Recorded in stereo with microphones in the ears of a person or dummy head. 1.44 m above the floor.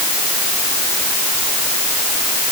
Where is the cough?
I don't hear a cough.